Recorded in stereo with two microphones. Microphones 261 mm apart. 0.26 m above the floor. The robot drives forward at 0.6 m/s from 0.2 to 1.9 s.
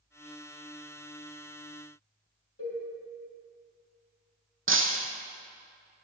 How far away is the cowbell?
About 4 m.